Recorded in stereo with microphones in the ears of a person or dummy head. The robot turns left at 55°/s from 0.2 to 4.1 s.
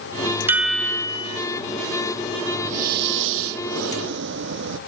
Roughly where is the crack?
I don't hear a crack.